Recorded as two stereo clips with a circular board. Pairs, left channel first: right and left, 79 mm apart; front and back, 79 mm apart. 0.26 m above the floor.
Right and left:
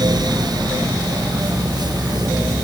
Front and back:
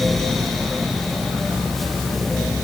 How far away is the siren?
No siren in this recording.